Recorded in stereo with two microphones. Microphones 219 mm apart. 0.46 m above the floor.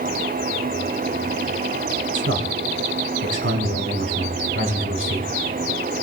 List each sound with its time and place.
2.1 s a man speaking: 70° right (ahead or behind), 4 m